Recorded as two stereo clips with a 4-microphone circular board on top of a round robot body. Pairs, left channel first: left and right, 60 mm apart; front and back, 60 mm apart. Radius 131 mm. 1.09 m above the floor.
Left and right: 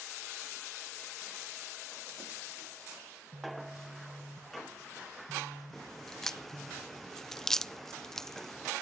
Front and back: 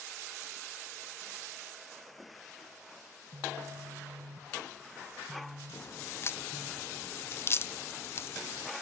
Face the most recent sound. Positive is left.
turn(degrees=10)